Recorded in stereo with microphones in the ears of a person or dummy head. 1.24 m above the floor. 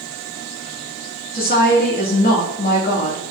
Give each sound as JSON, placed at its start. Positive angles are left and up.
{"t": 1.3, "sound": "a woman speaking", "side_deg": 45, "distance_m": 2.0}